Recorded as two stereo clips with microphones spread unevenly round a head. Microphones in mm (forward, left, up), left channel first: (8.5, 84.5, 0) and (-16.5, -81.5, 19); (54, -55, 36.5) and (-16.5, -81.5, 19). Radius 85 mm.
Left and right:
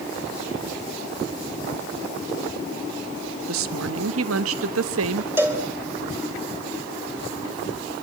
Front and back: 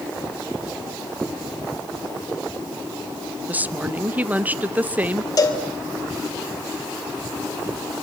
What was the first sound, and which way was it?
A woman speaking, 95° right.